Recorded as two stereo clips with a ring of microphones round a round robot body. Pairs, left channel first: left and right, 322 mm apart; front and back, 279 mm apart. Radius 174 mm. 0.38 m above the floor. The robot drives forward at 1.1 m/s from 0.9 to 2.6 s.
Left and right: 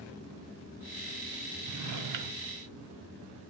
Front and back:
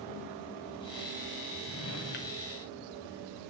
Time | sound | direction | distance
1.6 | a drawer | 45° right | 1.9 m